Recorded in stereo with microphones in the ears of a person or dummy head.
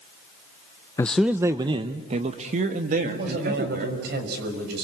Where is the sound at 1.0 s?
15° left (ahead or behind), 0.5 m; by 4.0 s 55° right (ahead or behind), 2.5 m.